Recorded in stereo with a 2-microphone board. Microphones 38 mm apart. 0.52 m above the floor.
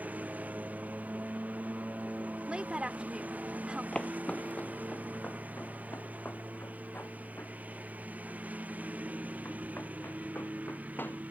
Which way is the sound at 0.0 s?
50° right (ahead or behind).